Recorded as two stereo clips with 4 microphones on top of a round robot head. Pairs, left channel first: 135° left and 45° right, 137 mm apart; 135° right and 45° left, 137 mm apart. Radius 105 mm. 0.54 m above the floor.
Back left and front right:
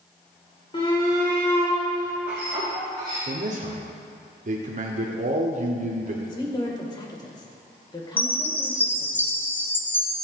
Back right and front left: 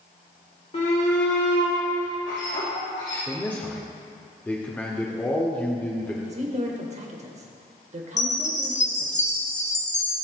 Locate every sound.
0.7 s a shout: 175° right, 2.5 m; by 3.2 s 105° right, 4 m
3.3 s a man speaking: 60° right, 1.5 m
6.2 s a woman speaking: 75° left, 2.5 m
8.2 s a chime: 150° right, 1.6 m